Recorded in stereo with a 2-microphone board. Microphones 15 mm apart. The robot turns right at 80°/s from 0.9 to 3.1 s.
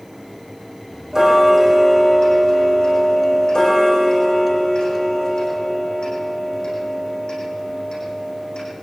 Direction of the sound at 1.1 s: 40° right.